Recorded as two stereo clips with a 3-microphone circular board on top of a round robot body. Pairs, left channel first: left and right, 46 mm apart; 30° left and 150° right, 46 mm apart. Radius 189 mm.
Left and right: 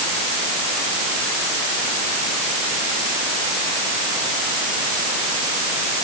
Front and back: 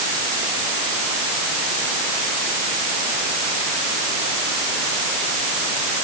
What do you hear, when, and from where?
Only background noise.